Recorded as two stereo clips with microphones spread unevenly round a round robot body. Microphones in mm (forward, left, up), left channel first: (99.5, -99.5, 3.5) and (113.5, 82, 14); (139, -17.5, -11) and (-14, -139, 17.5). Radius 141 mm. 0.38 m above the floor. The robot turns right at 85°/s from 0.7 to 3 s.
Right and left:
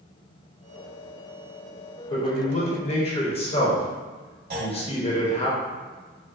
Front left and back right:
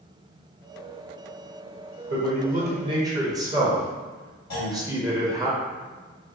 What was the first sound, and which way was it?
A man speaking, 145° right.